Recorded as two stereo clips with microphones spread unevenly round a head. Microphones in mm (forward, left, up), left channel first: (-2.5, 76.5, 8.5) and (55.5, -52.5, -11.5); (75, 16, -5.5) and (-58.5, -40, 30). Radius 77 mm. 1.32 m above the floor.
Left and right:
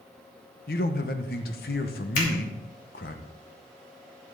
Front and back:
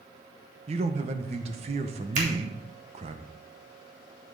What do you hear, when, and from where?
0.7 s a man speaking: 150° left, 1.0 m
2.1 s a finger snap: 155° left, 3 m